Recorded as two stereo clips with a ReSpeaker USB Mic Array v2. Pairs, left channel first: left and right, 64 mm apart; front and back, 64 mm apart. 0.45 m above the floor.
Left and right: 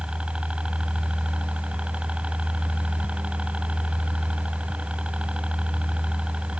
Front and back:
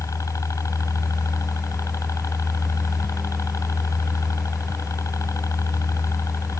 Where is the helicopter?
20° right.